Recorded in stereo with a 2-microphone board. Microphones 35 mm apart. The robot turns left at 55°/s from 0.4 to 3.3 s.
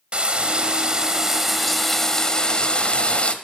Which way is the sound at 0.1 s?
25° right (ahead or behind).